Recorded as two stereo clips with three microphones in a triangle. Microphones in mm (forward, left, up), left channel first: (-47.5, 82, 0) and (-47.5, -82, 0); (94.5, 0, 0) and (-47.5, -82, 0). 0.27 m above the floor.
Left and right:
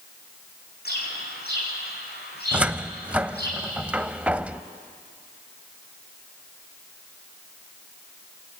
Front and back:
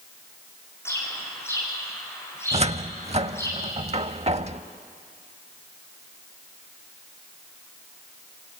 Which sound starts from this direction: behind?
A cupboard door, at 2.5 s.